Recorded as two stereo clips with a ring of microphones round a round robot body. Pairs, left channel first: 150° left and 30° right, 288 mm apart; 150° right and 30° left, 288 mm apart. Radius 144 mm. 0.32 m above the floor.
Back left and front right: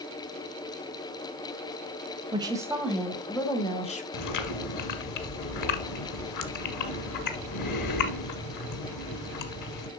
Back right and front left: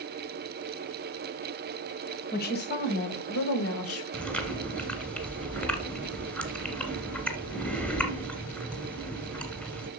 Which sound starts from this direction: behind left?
Chewing, at 4.1 s.